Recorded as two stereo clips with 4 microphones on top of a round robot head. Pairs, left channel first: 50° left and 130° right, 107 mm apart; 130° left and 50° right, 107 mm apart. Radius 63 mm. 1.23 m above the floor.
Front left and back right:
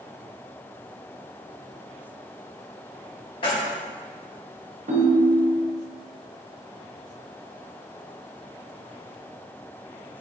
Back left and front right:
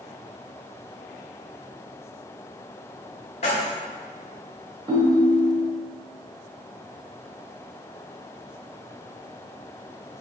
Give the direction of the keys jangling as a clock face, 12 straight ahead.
9 o'clock.